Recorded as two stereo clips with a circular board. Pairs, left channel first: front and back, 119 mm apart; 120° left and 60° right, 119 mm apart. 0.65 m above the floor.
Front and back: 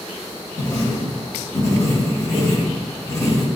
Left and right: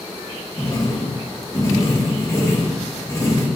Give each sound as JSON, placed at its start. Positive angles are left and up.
{"t": 0.6, "sound": "writing", "azimuth_deg": 60, "distance_m": 0.8}